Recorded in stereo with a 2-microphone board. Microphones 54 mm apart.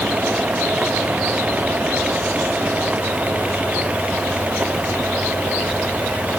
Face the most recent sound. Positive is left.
No sound to turn to.